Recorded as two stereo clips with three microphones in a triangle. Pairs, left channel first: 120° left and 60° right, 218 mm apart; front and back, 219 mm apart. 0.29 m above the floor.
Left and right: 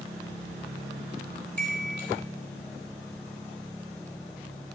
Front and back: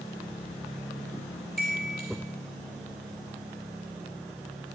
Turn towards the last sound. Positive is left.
turn(degrees=145)